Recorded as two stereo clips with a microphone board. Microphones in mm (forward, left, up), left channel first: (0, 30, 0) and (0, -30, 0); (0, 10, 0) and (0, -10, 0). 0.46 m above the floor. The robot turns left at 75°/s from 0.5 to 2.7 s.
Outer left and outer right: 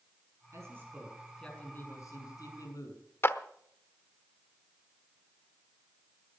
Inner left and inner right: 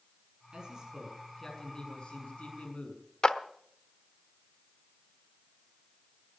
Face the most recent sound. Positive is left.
turn(degrees=40)  # may be behind; listen again after turning